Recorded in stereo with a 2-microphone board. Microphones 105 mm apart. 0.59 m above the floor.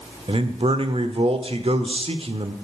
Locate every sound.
0.3 s a man speaking: 65° right (ahead or behind), 1.3 m